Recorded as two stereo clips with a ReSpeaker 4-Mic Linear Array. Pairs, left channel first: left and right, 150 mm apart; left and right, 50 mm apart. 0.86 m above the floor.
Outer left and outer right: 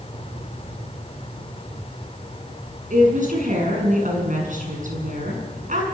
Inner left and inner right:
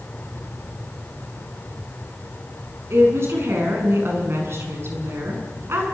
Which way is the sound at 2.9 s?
60° right (ahead or behind).